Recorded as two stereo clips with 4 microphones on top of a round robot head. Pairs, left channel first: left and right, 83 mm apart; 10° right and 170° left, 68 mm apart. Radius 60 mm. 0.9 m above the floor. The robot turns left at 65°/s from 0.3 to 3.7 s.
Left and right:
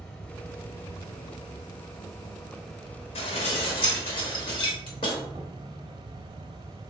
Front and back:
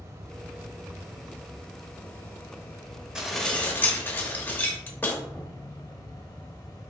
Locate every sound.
0.0 s an insect: 160° left, 0.7 m; by 6.9 s 60° right, 0.7 m
3.1 s dishes clattering: 90° left, 1.0 m; by 5.2 s 50° left, 1.0 m